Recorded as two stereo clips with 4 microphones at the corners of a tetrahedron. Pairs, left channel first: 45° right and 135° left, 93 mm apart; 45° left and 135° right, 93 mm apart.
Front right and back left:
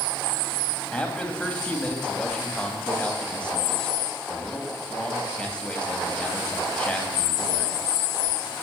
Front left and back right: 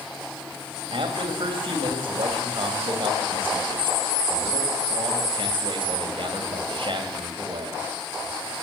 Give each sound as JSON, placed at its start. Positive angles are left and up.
{"t": 0.9, "sound": "a man speaking", "azimuth_deg": -125, "distance_m": 2.5}